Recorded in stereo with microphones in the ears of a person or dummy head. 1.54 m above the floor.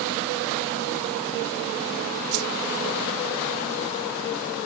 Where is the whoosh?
55° right (ahead or behind).